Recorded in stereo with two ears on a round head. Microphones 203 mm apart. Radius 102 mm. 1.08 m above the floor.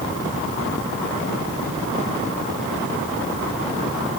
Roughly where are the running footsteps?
I don't hear running footsteps.